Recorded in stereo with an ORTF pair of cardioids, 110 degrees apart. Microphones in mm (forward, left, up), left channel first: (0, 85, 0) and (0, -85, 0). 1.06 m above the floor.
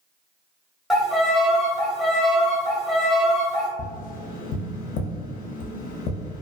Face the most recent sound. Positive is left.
turn(degrees=55)